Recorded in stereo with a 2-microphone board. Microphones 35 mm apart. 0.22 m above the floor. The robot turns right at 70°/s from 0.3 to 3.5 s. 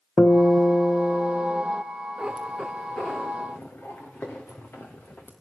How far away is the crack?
I don't hear a crack.